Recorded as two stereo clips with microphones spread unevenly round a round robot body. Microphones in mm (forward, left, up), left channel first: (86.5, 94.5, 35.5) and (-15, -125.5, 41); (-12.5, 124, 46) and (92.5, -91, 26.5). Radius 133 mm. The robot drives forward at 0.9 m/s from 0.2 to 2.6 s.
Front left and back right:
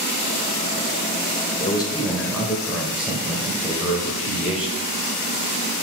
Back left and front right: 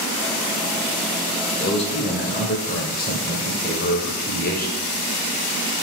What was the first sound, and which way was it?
A man speaking, 70° left.